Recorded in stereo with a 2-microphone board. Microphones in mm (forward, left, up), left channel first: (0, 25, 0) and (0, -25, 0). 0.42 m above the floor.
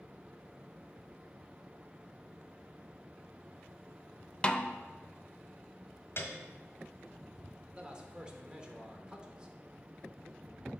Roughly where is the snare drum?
Centre.